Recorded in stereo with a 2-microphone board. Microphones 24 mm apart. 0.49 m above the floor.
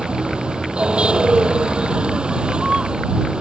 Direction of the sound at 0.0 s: 45° right (ahead or behind).